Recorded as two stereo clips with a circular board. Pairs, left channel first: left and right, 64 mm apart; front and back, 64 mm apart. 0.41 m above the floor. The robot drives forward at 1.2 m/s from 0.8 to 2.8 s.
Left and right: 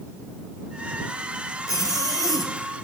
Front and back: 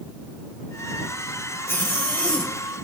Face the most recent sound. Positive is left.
turn(degrees=85)